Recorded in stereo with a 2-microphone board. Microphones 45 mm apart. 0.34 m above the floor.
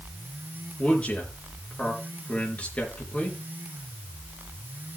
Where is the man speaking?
30° left (ahead or behind), 5 m.